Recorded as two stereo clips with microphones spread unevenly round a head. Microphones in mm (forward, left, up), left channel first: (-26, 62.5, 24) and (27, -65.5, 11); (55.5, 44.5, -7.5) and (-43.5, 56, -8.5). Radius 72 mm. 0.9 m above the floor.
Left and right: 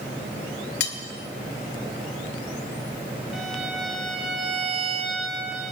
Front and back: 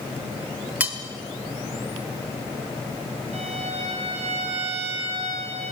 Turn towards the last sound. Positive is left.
turn(degrees=-155)